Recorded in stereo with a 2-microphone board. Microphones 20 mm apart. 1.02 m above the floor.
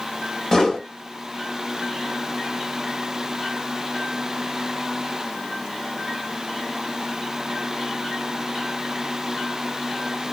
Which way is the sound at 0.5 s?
15° left (ahead or behind).